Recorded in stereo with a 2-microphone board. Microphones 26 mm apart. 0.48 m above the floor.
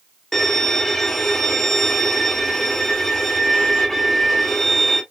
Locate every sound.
0.3 s a violin: 15° left (ahead or behind), 1.5 m